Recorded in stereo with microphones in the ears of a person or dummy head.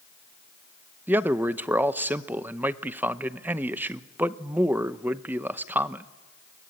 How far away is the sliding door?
I don't hear a sliding door.